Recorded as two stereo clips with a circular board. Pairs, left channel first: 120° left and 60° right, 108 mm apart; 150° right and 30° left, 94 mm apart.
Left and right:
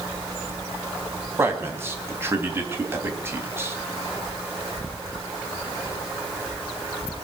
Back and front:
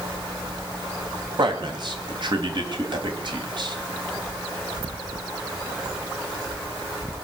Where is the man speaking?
5° left, 2.5 m.